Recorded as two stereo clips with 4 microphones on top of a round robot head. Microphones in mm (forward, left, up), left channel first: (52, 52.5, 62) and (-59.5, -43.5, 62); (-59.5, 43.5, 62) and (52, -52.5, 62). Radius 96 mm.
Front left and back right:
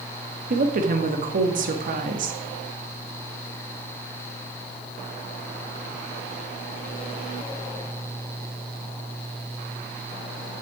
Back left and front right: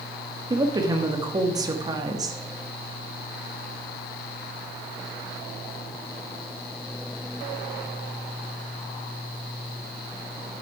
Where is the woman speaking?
105° right, 1.5 m.